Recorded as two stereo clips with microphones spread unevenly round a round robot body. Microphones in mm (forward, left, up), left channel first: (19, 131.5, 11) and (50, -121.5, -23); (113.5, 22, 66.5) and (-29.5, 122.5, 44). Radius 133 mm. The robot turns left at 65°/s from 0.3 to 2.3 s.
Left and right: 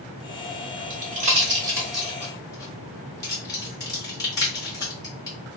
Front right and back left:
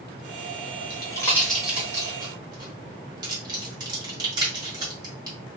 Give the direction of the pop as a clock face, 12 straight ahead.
3 o'clock.